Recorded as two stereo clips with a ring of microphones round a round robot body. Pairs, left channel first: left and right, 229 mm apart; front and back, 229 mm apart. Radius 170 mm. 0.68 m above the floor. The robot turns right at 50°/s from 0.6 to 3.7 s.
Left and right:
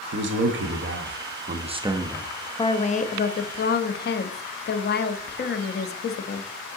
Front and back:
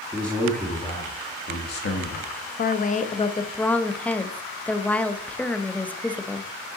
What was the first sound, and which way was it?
A man speaking, 85° right.